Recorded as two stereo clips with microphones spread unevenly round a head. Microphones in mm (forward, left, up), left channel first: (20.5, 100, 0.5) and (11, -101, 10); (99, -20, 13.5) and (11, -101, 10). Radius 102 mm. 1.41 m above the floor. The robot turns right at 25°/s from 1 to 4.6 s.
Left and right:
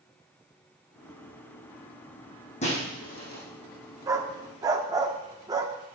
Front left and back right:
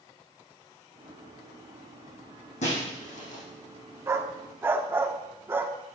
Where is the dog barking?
120° right, 0.9 m; by 5.7 s 110° right, 0.9 m.